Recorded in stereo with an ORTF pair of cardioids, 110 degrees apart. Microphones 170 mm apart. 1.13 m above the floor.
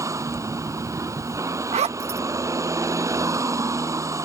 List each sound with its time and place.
0.0 s a vehicle: 15° right
1.7 s a zipper: 40° right